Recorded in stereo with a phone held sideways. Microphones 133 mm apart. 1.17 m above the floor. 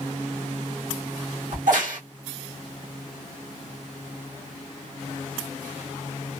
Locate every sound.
1.5 s a crack: 70° right (ahead or behind), 1.4 m